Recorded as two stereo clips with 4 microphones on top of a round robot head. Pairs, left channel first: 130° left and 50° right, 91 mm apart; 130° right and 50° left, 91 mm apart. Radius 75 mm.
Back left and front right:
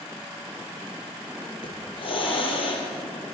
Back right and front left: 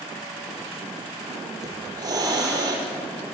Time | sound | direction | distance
1.6 | a hiss | 100° left | 5 m